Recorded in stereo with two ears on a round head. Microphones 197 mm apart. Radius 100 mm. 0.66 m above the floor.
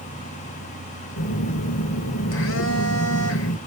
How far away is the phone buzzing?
About 1.3 m.